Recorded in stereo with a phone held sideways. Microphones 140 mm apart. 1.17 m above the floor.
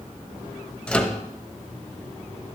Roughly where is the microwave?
Centre.